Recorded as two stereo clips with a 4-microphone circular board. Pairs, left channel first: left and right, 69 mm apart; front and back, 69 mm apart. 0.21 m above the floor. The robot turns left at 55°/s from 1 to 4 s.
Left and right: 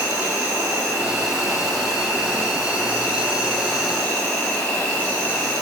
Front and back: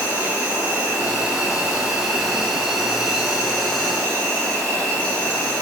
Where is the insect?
145° right, 1.5 m; by 5.6 s 50° left, 1.5 m.